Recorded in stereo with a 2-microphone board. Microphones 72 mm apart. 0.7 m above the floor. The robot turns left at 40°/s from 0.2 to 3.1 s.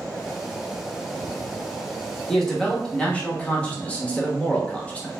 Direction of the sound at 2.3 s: 5° left (ahead or behind).